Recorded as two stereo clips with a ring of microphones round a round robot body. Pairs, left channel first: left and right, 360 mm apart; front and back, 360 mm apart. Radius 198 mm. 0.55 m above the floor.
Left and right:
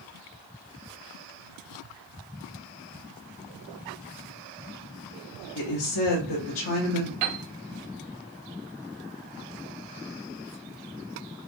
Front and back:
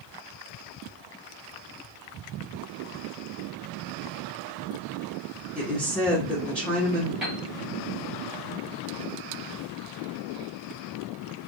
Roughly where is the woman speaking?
Left.